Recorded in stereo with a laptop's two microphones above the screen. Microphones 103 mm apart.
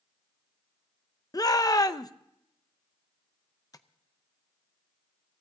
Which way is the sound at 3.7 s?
35° left (ahead or behind).